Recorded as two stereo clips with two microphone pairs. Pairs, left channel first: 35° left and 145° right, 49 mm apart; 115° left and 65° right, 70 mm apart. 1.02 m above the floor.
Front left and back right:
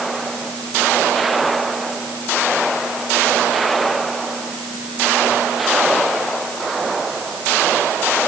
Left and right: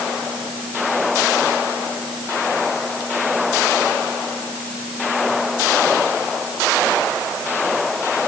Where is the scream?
I don't hear a scream.